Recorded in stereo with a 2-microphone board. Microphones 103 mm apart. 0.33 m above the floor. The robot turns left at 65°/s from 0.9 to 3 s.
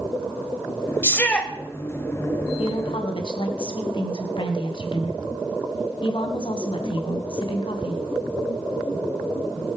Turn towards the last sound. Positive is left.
turn(degrees=55)  # may be behind; listen again after turning